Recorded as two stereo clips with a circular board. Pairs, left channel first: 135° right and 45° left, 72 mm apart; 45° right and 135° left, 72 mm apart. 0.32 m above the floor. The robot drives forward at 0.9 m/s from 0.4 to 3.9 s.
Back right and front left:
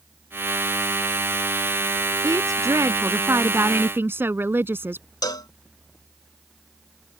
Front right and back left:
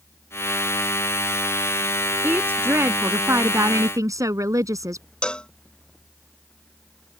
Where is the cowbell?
120° right.